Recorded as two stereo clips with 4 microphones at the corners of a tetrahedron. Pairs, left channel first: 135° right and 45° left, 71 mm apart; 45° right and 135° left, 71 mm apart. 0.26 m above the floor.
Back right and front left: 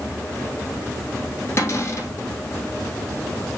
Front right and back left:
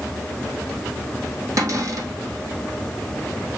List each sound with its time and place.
1.6 s a cupboard door: 175° left, 3 m